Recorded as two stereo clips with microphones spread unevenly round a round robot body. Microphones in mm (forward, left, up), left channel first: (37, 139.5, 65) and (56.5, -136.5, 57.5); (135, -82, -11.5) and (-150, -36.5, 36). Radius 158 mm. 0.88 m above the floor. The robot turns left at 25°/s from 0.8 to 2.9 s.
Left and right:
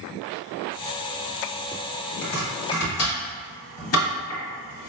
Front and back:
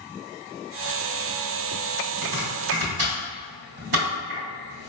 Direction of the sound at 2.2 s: 155° left.